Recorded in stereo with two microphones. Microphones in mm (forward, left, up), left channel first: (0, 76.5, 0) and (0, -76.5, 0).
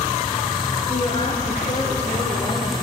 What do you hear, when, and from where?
0.9 s a woman speaking: 35° left (ahead or behind), 4.5 m; by 2.8 s 40° left (ahead or behind), 6.5 m